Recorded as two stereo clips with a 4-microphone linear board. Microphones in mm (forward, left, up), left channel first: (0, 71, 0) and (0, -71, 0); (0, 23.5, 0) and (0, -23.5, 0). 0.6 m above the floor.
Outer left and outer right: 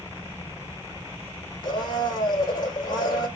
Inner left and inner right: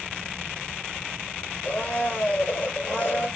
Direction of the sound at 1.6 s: 30° left (ahead or behind).